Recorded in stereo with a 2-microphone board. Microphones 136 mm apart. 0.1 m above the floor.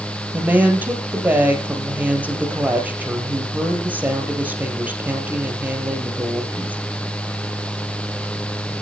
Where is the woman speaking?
10° right (ahead or behind), 3 m.